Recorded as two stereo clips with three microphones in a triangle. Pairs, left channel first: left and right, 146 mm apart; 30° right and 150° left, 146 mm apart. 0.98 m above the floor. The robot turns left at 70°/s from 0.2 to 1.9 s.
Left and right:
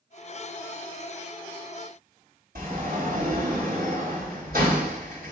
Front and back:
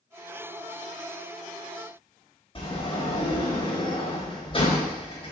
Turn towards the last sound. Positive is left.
turn(degrees=-85)